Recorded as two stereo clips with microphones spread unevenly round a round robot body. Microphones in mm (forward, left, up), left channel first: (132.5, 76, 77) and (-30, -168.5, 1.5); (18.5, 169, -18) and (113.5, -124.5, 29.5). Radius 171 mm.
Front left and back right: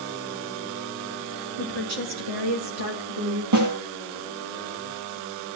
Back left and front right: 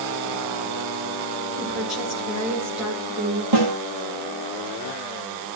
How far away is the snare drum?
About 4.5 m.